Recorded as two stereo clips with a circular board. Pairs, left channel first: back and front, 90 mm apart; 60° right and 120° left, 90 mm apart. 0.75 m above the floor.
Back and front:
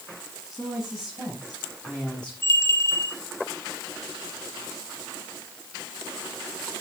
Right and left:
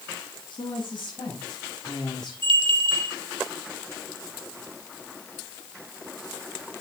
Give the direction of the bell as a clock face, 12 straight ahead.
8 o'clock.